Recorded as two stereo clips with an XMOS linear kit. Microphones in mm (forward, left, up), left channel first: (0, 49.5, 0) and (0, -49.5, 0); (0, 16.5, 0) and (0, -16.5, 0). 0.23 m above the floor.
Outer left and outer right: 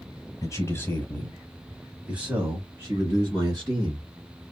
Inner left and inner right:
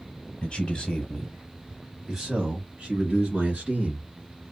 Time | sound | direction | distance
0.4 | a man speaking | 30° left (ahead or behind) | 1.4 m